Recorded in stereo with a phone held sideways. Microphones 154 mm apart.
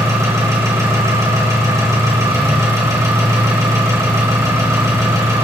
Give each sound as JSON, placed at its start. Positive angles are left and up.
{"t": 0.0, "sound": "an engine running", "side_deg": -20, "distance_m": 1.6}